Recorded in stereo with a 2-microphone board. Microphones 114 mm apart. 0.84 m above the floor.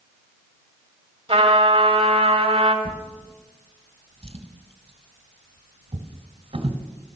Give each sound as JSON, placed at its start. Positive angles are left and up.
{"t": 1.3, "sound": "a trumpet", "side_deg": -55, "distance_m": 1.6}
{"t": 2.9, "sound": "a drawer", "side_deg": -60, "distance_m": 1.4}